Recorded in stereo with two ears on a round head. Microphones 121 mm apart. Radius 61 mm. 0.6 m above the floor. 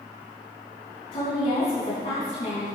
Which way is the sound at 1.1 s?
50° left (ahead or behind).